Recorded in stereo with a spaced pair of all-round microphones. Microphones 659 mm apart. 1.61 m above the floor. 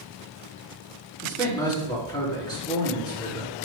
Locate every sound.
1.2 s a man speaking: 5° left (ahead or behind), 3.5 m